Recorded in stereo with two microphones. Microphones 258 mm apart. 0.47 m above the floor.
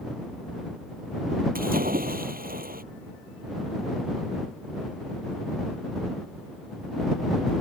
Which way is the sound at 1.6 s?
35° right (ahead or behind).